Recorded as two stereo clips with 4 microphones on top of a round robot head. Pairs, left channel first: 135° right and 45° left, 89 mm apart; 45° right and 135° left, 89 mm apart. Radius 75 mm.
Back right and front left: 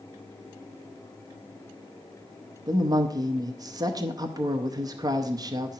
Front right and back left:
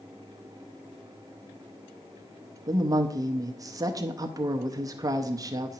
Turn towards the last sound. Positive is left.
turn(degrees=90)